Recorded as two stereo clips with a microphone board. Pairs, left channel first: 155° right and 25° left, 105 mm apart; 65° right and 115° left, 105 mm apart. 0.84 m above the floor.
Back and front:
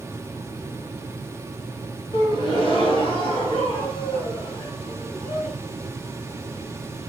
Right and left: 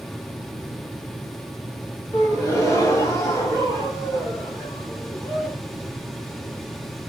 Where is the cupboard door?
No cupboard door in this recording.